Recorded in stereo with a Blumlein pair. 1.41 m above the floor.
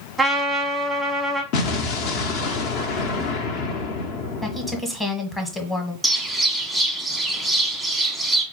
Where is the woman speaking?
10° left, 1.0 m.